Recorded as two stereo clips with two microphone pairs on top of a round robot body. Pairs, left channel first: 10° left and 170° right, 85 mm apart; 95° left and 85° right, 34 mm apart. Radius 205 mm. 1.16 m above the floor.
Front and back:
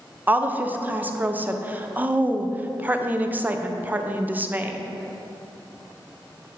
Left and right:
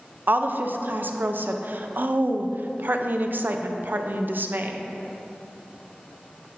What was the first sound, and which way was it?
A woman speaking, 110° right.